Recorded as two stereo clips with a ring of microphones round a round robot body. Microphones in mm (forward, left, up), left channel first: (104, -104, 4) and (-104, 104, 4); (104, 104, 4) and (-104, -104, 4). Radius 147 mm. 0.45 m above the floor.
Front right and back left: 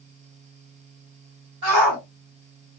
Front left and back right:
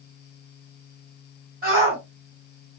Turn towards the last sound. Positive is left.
turn(degrees=165)